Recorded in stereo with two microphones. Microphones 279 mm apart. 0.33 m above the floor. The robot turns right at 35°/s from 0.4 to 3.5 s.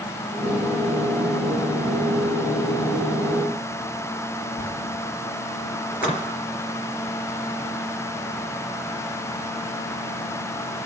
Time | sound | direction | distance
4.6 | a zipper | 50° right (ahead or behind) | 4.5 m
5.9 | a splash | 30° left (ahead or behind) | 3.5 m